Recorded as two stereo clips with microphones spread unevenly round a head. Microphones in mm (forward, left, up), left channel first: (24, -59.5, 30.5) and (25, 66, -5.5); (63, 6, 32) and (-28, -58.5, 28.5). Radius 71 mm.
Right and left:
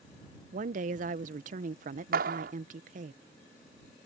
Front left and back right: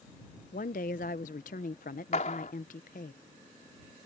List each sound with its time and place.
0.5 s a woman speaking: 60° left
2.1 s a clap: 80° left